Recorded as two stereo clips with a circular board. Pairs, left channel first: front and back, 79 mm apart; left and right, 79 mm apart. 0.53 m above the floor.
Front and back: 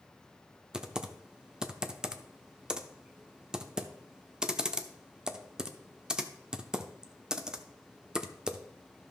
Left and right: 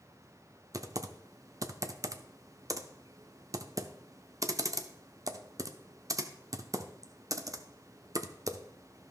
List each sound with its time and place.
0.7 s typing on a keyboard: 105° right, 0.6 m